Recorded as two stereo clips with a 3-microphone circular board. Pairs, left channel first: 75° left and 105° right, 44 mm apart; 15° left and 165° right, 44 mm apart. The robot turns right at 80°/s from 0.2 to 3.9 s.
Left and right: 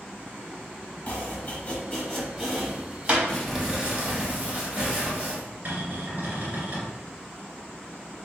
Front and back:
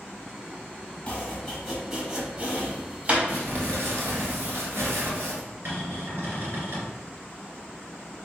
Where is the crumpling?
150° left, 1.3 m; by 5.4 s 160° right, 1.3 m.